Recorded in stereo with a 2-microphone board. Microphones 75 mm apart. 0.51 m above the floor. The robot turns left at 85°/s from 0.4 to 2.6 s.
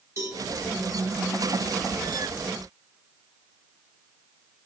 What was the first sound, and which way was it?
A cowbell, 40° right (ahead or behind).